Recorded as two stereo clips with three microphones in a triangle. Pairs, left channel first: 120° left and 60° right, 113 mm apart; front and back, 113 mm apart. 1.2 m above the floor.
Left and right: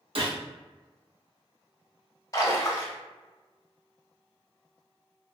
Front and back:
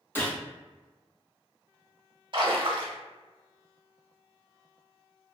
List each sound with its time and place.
0.1 s a gunshot: 70° right, 0.8 m
2.3 s a splash: 165° left, 0.7 m